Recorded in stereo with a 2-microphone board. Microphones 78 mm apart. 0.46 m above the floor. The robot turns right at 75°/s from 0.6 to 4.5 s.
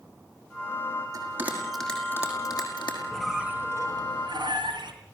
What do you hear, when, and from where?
1.1 s a bell: 45° right (ahead or behind), 5.5 m; by 3.0 s 85° left, 5.5 m
3.1 s a squeak: 175° left, 3 m; by 4.9 s 85° right, 3 m